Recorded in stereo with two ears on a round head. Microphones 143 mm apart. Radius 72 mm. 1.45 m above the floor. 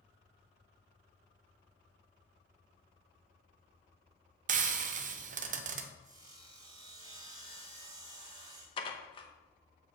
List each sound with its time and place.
4.5 s frying: 50° right (ahead or behind), 0.7 m
6.0 s sawing: 25° right (ahead or behind), 1.9 m
8.8 s dishes clattering: 35° left (ahead or behind), 1.0 m